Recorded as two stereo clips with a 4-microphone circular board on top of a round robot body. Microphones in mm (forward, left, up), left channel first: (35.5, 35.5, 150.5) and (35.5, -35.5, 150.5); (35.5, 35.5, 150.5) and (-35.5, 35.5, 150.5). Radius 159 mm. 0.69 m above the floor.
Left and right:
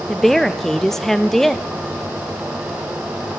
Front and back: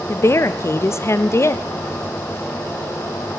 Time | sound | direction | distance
0.1 | a woman speaking | 5° left | 0.5 m